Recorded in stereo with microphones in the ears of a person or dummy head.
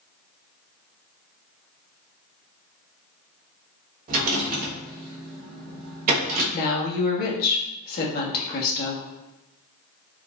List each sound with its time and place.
4.1 s a rattle: 45° right (ahead or behind), 1.1 m
6.5 s a woman speaking: 55° left (ahead or behind), 1.0 m